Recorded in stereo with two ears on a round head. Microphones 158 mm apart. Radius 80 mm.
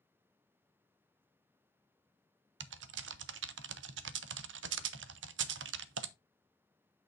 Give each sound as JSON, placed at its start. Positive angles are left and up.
{"t": 2.6, "sound": "typing on a keyboard", "side_deg": -85, "distance_m": 0.5}